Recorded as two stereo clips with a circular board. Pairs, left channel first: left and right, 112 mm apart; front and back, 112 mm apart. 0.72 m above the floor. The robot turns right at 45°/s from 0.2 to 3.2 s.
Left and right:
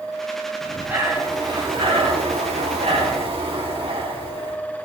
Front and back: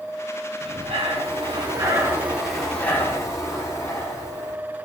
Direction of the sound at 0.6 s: Straight behind.